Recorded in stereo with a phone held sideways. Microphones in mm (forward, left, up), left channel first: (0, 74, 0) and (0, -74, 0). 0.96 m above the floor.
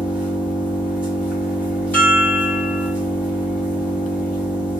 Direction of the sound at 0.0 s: 10° right (ahead or behind).